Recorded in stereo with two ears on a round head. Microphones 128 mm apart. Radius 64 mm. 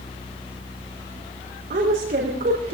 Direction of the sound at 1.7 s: 65° right (ahead or behind).